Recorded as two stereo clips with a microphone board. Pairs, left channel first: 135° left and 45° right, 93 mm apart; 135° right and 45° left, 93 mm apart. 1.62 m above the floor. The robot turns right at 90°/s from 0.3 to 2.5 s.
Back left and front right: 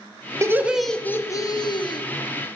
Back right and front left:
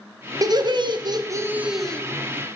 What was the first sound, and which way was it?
Laughter, 5° left.